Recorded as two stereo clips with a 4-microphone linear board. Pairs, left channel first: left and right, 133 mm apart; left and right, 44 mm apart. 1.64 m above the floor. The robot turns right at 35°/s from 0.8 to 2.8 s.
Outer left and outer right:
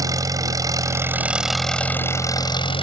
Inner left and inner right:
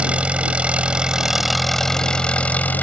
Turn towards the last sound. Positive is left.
turn(degrees=45)